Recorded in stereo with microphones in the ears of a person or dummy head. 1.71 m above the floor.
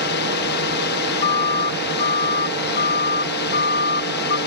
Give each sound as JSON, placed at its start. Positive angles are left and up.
{"t": 0.0, "sound": "a drone", "side_deg": 55}
{"t": 1.2, "sound": "a siren", "side_deg": 35}